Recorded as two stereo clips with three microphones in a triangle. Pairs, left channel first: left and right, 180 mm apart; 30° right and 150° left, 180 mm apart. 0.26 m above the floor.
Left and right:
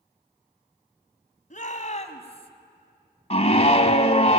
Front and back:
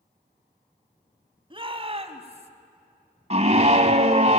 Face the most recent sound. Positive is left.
turn(degrees=125)